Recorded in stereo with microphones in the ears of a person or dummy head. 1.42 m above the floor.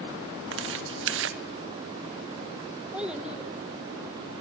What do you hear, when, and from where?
0.5 s tearing paper: 75° right (ahead or behind), 1.3 m
2.9 s a child speaking: 5° right (ahead or behind), 1.0 m